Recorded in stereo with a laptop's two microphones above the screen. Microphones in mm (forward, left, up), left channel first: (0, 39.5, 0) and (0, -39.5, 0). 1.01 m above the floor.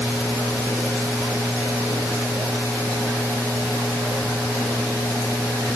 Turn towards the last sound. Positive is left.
No sound to turn to.